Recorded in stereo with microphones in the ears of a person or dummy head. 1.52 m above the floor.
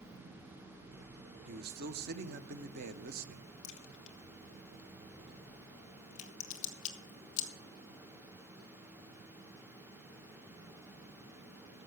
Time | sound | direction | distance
1.5 | a man speaking | 55° right (ahead or behind) | 0.8 m
3.6 | a crack | 40° left (ahead or behind) | 1.3 m